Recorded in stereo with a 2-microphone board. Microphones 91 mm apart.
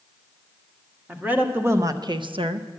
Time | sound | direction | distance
1.1 | a woman speaking | 15° right (ahead or behind) | 1.4 m